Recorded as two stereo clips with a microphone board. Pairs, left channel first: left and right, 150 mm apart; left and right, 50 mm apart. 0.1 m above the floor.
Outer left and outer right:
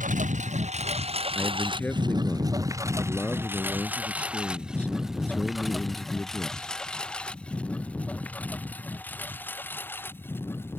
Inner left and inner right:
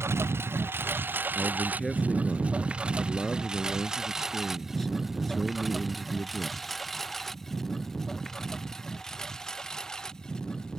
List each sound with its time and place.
0.0 s a lawn mower: 60° right (ahead or behind); by 10.8 s 15° left (ahead or behind)
1.4 s a man speaking: 10° left (ahead or behind)